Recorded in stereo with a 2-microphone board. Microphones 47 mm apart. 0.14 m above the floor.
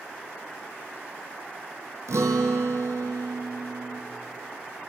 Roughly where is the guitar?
Right.